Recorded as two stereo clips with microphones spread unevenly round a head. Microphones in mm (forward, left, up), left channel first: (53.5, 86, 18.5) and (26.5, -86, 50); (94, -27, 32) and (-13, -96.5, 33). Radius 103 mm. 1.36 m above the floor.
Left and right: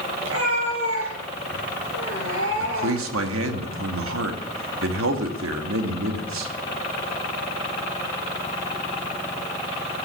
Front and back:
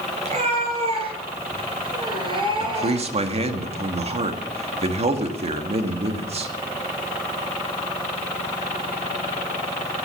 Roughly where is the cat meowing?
Behind right.